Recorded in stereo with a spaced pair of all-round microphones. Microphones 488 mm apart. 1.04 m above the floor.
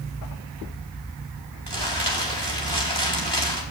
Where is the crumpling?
55° right (ahead or behind), 3 m.